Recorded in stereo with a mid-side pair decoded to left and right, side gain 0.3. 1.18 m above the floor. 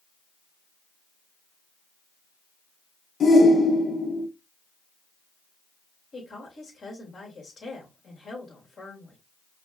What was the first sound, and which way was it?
A shout, 65° left.